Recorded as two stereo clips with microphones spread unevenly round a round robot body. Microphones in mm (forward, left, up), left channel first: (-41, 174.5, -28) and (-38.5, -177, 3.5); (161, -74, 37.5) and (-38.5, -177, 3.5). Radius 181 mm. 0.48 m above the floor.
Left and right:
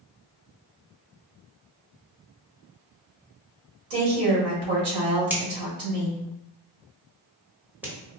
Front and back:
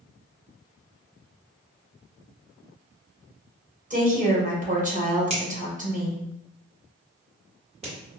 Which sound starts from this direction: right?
A woman speaking, at 3.9 s.